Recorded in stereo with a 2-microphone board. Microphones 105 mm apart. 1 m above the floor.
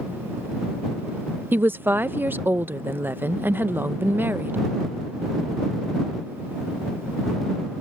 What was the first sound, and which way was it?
A woman speaking, 20° right (ahead or behind).